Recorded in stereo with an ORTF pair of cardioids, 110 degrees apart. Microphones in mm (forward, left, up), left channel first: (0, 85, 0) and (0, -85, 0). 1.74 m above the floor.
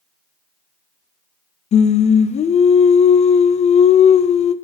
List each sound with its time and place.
1.7 s singing: 40° left, 0.7 m